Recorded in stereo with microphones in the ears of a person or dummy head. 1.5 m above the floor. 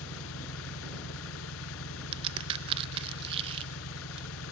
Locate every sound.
0.0 s an engine running: 85° left
2.1 s a crack: 35° right (ahead or behind)